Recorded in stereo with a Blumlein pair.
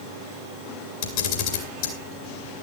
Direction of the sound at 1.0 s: 50° left.